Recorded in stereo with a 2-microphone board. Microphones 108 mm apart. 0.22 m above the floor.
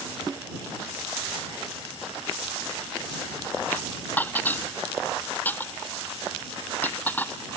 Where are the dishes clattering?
15° left (ahead or behind).